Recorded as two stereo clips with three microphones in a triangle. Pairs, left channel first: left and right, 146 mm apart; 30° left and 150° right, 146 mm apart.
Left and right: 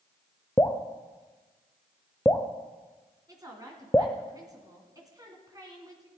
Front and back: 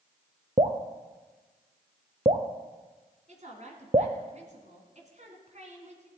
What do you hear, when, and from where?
0.6 s dripping: 165° left, 0.8 m
3.3 s a woman speaking: 150° right, 2 m